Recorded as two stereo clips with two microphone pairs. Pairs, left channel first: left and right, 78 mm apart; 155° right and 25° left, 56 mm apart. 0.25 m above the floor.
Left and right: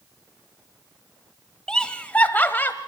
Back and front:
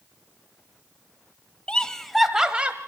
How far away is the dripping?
I don't hear dripping.